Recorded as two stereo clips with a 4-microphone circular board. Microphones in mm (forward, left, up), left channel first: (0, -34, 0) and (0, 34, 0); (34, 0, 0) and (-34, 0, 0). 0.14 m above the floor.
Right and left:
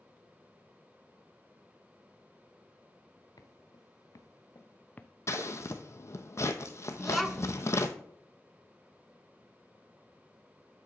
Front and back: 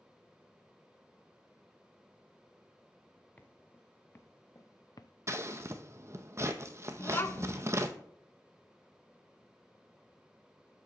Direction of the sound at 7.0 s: 5° right.